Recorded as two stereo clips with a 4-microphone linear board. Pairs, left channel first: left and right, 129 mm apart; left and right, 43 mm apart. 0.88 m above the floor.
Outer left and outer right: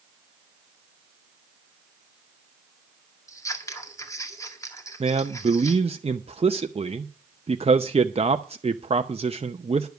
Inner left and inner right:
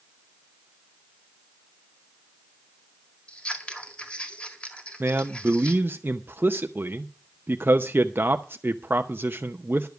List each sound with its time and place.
3.3 s scissors: 25° left (ahead or behind), 1.8 m
5.0 s a man speaking: 50° right (ahead or behind), 0.6 m